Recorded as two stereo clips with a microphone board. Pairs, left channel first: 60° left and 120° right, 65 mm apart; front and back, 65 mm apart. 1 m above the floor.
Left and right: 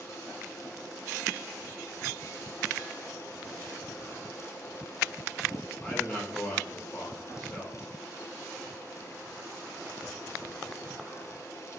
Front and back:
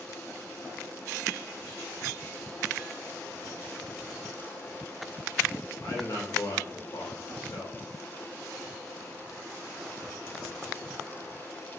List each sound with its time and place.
5.8 s a man speaking: 15° right, 1.4 m